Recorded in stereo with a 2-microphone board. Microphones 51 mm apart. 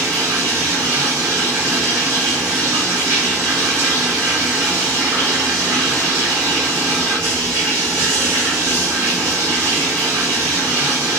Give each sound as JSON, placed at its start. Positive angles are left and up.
{"t": 0.0, "sound": "running water", "side_deg": -80, "distance_m": 1.5}